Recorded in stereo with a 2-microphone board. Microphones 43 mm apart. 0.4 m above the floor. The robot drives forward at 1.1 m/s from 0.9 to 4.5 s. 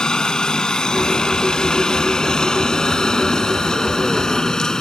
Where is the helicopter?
20° left (ahead or behind); by 4.8 s 15° left (ahead or behind).